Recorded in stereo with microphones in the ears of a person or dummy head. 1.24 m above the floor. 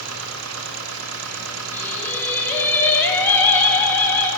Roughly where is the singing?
Centre.